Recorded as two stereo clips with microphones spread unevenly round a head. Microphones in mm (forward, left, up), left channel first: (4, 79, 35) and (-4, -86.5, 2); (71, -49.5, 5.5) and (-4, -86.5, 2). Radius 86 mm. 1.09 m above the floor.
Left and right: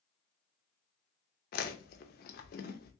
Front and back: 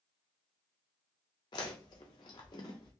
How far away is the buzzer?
No buzzer in this recording.